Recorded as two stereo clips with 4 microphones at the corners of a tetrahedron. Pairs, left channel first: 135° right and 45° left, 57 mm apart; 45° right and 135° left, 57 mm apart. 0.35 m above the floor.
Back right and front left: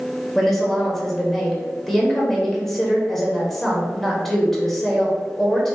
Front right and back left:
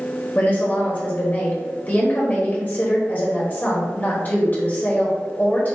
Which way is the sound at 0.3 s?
50° right.